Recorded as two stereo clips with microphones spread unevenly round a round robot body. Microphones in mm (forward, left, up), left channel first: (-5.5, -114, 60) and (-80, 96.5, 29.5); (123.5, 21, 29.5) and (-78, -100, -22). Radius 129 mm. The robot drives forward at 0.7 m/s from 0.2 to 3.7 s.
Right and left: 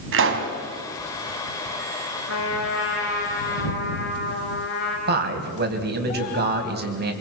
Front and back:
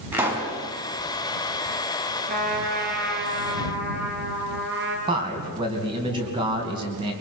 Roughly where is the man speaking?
Behind left.